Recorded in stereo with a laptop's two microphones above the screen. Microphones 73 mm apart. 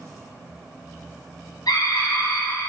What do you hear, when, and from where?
1.7 s a scream: 65° left (ahead or behind), 1.4 m; by 2.7 s 40° left (ahead or behind), 2 m